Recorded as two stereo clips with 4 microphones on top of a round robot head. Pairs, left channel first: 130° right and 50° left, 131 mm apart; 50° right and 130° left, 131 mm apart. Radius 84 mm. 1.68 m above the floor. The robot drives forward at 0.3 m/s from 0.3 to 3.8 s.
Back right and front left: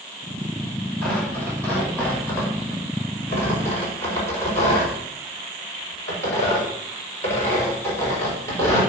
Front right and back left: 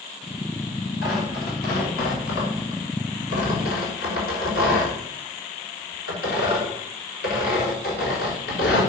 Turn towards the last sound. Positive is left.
turn(degrees=-60)